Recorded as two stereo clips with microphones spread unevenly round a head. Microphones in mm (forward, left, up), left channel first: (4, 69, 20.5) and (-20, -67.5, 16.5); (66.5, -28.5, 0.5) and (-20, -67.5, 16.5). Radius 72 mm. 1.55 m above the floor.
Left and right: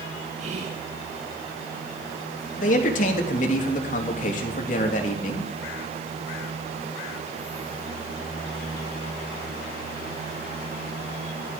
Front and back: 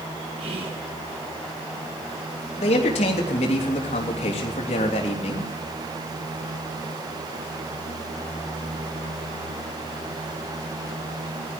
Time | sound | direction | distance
0.4 | whispering | 140° right | 2 m
2.6 | a man speaking | 45° left | 3 m